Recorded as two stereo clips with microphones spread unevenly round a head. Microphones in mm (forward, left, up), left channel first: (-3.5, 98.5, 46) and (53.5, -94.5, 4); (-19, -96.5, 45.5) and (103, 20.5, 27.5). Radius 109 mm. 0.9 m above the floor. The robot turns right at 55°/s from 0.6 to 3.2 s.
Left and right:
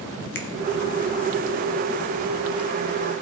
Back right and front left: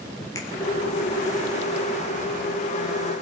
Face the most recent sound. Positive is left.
turn(degrees=-70)